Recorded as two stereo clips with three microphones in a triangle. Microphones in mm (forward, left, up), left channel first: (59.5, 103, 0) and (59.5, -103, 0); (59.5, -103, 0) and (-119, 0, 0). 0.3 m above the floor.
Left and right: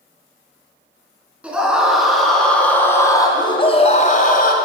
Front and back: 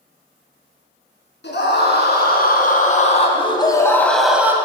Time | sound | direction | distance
1.4 | a scream | 5° right | 4.5 m